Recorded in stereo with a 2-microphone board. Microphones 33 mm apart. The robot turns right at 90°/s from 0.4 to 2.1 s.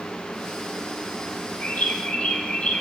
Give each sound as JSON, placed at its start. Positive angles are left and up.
{"t": 1.6, "sound": "a bird", "azimuth_deg": 80, "distance_m": 3.5}